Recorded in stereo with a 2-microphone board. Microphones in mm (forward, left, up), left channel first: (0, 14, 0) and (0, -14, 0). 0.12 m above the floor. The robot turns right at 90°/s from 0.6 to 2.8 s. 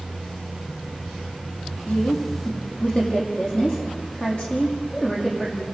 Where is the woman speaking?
55° left (ahead or behind), 6.5 m; by 5.6 s 35° left (ahead or behind), 6.5 m.